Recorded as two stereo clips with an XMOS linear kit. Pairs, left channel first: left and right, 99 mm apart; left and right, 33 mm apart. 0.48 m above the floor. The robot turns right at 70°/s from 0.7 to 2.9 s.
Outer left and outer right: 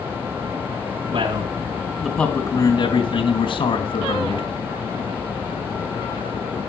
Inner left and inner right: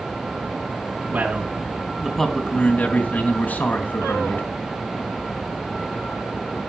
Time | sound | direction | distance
1.1 | a man speaking | 70° right | 3 m